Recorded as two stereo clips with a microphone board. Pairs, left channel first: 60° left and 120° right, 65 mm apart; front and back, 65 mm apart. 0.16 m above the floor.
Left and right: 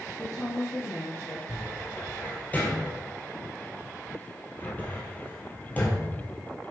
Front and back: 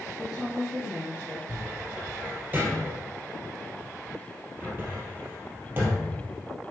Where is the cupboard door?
125° left, 2.5 m.